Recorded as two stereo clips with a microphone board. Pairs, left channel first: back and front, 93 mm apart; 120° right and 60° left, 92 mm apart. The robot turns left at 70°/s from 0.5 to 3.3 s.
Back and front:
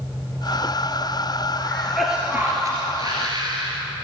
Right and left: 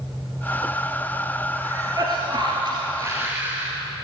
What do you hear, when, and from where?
1.6 s a cough: 120° left, 2 m; by 3.7 s straight ahead, 2 m